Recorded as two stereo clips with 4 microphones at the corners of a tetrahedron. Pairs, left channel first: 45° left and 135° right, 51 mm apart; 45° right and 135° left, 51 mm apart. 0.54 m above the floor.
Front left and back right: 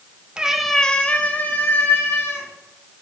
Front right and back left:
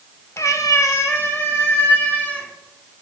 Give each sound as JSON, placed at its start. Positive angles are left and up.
{"t": 0.4, "sound": "a cat meowing", "azimuth_deg": -65, "distance_m": 0.7}